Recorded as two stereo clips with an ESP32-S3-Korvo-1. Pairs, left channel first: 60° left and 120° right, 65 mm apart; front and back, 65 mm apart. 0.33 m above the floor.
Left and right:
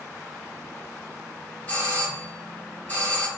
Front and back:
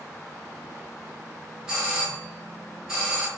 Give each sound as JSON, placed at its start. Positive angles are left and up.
{"t": 1.7, "sound": "a doorbell", "azimuth_deg": 115, "distance_m": 1.9}